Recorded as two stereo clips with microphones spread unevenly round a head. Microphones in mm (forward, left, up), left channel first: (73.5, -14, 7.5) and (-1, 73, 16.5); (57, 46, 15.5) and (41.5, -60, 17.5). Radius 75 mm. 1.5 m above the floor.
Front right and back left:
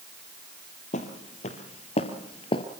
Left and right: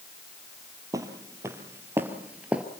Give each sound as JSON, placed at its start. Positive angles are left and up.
{"t": 0.9, "sound": "footsteps", "azimuth_deg": -45, "distance_m": 2.5}